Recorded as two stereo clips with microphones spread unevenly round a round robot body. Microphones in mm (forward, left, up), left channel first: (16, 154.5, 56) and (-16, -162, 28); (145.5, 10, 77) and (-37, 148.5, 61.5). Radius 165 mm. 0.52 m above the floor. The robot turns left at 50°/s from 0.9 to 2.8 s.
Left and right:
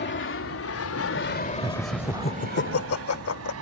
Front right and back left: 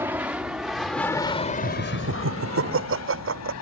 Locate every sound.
0.0 s an aircraft: 80° left; by 3.6 s 55° right
1.6 s laughter: 170° right; by 3.5 s 130° left